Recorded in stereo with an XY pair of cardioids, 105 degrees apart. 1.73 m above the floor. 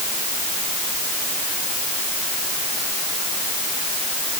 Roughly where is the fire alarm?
I don't hear a fire alarm.